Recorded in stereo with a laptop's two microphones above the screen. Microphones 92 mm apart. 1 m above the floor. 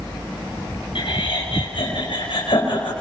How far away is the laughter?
About 6.5 m.